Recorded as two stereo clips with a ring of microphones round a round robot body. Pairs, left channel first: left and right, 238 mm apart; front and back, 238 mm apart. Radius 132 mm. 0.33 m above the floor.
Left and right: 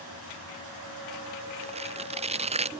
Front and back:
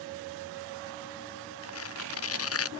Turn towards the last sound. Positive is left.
turn(degrees=-25)